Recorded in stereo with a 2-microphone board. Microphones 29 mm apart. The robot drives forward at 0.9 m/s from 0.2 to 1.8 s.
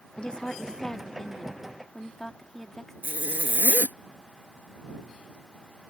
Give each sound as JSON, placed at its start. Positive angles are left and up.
{"t": 0.2, "sound": "a woman speaking", "side_deg": 35}
{"t": 3.0, "sound": "a zipper", "side_deg": -80}